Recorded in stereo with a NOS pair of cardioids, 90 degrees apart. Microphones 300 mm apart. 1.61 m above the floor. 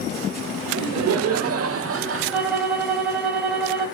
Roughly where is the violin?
Ahead.